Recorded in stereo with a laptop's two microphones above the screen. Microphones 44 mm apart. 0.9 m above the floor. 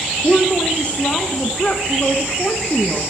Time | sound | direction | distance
0.2 | a woman speaking | 30° left (ahead or behind) | 0.5 m